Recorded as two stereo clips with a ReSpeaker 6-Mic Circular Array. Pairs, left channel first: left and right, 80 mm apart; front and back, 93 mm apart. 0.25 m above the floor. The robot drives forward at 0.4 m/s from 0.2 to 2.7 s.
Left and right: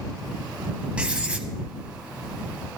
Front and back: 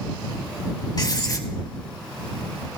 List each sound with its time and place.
1.0 s writing: 20° right, 1.1 m; by 1.5 s 25° right, 0.9 m